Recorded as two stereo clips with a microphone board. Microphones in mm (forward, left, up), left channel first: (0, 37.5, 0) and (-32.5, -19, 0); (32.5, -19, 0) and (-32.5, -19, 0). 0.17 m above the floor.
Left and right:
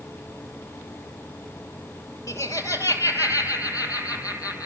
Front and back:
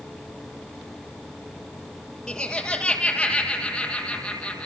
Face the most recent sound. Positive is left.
turn(degrees=75)